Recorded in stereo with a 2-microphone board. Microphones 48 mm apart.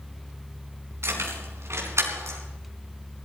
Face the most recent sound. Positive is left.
turn(degrees=-70)  # may be behind; listen again after turning